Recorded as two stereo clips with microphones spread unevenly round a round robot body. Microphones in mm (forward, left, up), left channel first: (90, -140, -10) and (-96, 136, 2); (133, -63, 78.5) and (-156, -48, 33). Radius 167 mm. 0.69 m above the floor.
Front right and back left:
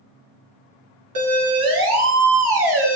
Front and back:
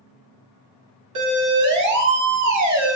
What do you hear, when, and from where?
1.1 s a siren: 150° left, 7.5 m; by 3.0 s 140° left, 6 m